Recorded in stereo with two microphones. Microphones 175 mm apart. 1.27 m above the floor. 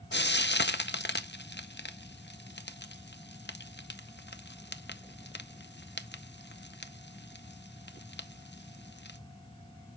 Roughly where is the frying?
Left.